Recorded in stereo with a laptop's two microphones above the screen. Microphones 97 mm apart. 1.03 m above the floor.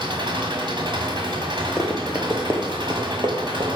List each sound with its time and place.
0.0 s an engine running: 55° right (ahead or behind), 1.6 m
1.8 s running footsteps: centre (ahead or behind), 1.5 m; by 3.8 s 60° right (ahead or behind), 2 m